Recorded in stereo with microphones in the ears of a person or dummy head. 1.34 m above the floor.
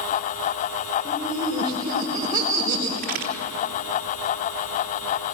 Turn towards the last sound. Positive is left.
turn(degrees=-50)  # may be behind; listen again after turning